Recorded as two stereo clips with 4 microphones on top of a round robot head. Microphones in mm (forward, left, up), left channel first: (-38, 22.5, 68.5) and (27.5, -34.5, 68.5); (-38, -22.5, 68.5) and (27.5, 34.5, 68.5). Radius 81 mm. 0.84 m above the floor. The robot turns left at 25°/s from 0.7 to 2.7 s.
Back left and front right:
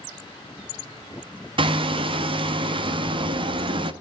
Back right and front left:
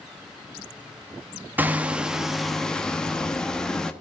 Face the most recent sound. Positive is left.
turn(degrees=-55)